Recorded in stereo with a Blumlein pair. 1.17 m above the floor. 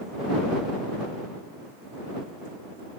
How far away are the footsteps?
I don't hear footsteps.